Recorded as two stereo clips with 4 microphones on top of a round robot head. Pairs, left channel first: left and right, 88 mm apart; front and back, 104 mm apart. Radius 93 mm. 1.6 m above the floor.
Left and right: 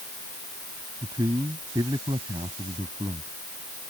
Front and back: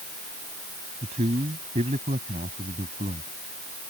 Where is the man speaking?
150° right; by 3.3 s 145° right.